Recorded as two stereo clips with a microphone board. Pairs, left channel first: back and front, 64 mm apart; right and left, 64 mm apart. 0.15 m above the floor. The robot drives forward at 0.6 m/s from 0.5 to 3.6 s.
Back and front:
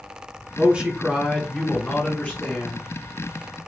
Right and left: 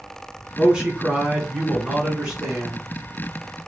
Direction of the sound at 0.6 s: 30° left.